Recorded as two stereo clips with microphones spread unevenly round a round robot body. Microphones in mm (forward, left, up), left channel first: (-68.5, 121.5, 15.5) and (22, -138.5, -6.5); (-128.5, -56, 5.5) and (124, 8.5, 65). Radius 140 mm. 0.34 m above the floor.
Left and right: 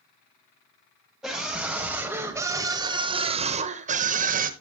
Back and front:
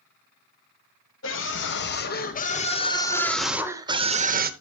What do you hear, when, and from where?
1.2 s a scream: 155° right, 2.0 m; by 4.5 s 40° right, 1.3 m